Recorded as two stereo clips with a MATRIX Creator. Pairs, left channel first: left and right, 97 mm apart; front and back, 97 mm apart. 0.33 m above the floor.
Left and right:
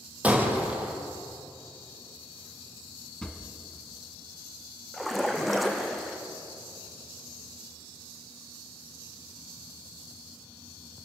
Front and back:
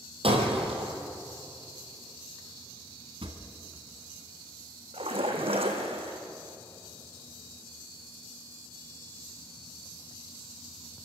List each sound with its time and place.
0.2 s breaking glass: 165° right, 4 m
3.2 s a drawer: 170° left, 1.8 m
4.9 s a splash: straight behind, 3 m